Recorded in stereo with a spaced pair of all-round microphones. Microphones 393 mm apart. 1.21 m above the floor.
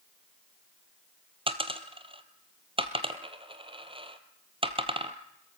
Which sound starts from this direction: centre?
A dropped coin, at 1.5 s.